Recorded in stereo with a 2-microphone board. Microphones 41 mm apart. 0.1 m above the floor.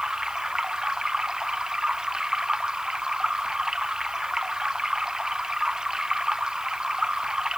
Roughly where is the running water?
Centre.